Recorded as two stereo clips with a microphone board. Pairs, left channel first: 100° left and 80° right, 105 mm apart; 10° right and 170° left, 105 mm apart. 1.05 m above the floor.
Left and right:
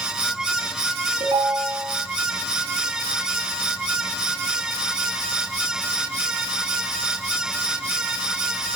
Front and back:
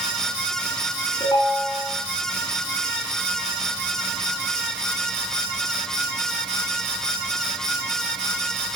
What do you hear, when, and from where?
1.2 s a ringtone: 50° right, 4.5 m